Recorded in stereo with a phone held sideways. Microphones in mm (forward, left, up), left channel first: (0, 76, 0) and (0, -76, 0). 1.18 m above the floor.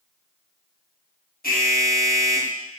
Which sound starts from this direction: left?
An alarm, at 1.4 s.